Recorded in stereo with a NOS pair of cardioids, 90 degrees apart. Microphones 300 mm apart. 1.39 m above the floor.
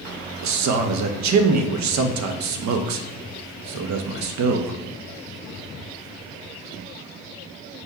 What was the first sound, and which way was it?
A man speaking, 65° right.